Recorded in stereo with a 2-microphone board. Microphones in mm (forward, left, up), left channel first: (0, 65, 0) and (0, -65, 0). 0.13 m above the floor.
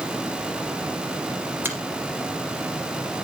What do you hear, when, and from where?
1.6 s a finger snap: 15° right (ahead or behind), 2 m